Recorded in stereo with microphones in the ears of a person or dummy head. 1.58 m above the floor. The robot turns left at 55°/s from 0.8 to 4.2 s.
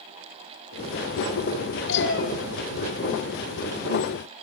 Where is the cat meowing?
70° left (ahead or behind), 4 m; by 2.3 s 50° left (ahead or behind), 4 m.